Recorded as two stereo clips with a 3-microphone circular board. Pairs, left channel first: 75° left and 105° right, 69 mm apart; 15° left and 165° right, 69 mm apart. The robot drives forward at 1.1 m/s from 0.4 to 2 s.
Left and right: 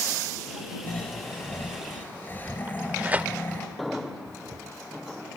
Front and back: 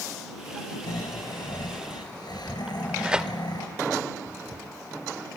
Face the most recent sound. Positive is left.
turn(degrees=-110)